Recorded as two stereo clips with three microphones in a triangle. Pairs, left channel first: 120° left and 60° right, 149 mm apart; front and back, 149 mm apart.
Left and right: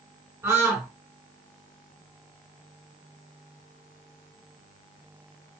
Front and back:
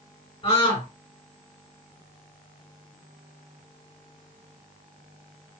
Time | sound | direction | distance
0.4 | a scream | straight ahead | 1.3 m